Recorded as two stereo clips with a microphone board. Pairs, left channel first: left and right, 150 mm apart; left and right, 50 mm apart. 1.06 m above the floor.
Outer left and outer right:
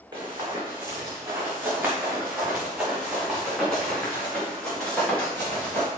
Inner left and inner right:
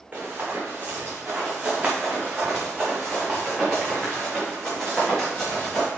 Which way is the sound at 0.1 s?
30° right (ahead or behind).